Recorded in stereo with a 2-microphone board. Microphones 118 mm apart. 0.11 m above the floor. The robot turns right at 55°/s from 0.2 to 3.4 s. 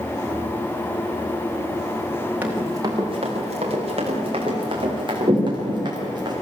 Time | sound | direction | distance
2.4 | running footsteps | 15° right (ahead or behind) | 5 m